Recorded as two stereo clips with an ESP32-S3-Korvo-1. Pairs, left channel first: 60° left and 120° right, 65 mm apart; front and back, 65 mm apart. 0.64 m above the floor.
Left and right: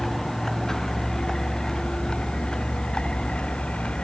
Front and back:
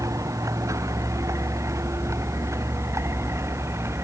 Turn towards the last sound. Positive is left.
turn(degrees=135)